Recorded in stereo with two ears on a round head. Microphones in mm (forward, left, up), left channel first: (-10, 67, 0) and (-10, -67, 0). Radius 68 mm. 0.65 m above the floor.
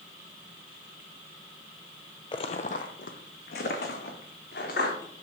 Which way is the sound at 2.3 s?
30° left (ahead or behind).